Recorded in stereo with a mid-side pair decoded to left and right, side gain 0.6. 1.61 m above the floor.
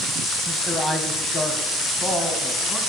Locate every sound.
0.5 s a man speaking: 15° left, 1.3 m; by 2.8 s 30° left, 2.5 m